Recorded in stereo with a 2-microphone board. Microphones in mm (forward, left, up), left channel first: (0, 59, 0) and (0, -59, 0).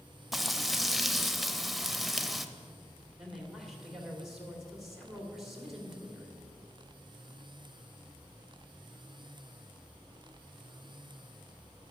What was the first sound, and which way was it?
Frying, centre (ahead or behind).